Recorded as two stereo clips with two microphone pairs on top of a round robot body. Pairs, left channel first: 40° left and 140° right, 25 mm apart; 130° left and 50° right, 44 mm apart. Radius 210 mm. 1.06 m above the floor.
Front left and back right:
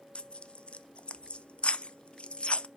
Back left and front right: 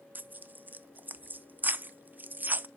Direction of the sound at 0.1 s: 5° right.